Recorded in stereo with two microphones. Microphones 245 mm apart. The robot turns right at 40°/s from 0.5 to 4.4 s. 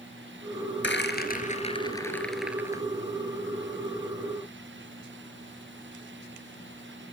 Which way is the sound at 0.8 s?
50° left (ahead or behind).